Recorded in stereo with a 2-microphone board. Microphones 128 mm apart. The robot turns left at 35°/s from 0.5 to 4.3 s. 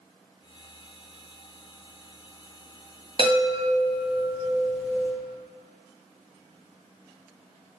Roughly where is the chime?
Ahead right.